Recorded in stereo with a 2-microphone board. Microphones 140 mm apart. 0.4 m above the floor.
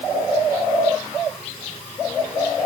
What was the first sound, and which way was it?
Only background noise.